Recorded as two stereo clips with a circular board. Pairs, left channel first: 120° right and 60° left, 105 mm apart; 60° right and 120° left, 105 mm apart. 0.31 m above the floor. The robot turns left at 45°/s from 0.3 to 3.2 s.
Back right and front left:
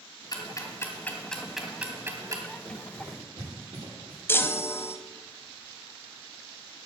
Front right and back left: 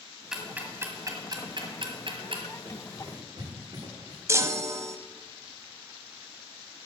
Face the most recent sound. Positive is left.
turn(degrees=175)